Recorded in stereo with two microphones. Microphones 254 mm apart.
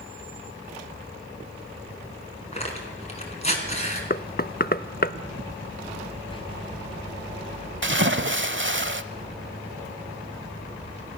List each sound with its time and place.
2.5 s tearing paper: 25° left (ahead or behind), 4 m
4.1 s knocking: 35° left (ahead or behind), 0.6 m
6.3 s whispering: 20° left (ahead or behind), 2 m
7.8 s a splash: 50° right (ahead or behind), 0.9 m